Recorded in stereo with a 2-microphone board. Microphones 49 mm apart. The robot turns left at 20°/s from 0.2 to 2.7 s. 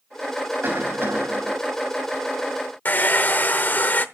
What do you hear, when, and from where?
0.6 s a cough: 45° right (ahead or behind), 3 m; by 1.5 s 60° right (ahead or behind), 3 m
2.9 s a hair dryer: 40° left (ahead or behind), 0.8 m